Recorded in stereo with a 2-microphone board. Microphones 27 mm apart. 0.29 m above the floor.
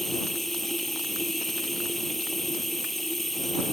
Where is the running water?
15° left (ahead or behind).